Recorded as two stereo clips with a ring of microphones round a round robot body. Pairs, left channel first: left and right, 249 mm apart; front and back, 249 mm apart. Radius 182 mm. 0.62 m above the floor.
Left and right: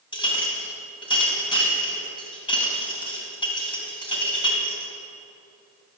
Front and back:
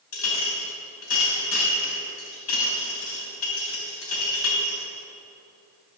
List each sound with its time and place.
0.1 s a clink: 20° left, 3.5 m